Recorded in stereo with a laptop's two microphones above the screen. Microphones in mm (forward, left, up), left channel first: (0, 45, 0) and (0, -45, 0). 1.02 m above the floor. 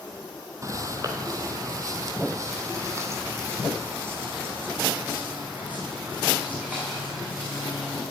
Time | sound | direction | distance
0.6 | footsteps | 35° right (ahead or behind) | 1.3 m